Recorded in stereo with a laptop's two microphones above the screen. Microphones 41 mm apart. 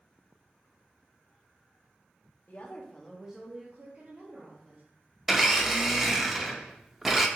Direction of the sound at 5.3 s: 5° right (ahead or behind).